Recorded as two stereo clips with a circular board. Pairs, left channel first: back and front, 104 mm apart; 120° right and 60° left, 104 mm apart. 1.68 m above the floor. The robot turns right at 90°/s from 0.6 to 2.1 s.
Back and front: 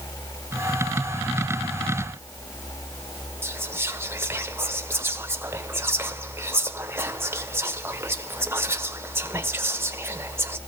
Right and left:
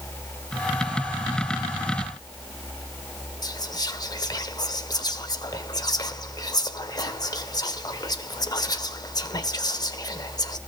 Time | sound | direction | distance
3.4 | whispering | 70° right | 1.4 m